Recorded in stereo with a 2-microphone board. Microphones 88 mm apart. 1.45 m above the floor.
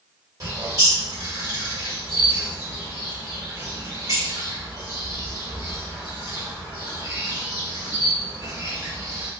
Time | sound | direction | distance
0.4 | a bird | 45° right (ahead or behind) | 1.5 m